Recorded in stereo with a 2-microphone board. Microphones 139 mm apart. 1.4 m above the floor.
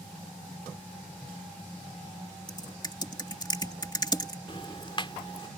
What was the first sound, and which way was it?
Typing on a keyboard, 30° left (ahead or behind).